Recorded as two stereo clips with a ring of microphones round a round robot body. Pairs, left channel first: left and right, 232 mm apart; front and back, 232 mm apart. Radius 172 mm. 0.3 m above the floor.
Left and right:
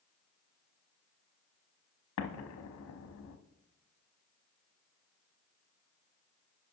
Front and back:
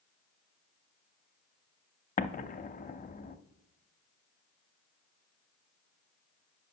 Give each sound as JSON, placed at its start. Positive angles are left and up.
{"t": 2.2, "sound": "an explosion", "azimuth_deg": 60, "distance_m": 0.6}